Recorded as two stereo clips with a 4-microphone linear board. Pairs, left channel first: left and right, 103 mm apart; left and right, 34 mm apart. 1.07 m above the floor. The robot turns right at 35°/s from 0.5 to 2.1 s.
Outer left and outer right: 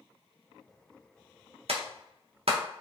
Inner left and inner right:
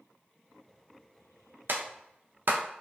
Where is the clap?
75° right (ahead or behind), 0.5 m; by 2.6 s 70° right (ahead or behind), 0.5 m.